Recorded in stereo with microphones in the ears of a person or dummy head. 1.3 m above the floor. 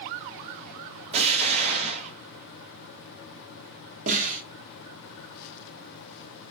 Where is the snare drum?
35° right (ahead or behind), 0.7 m.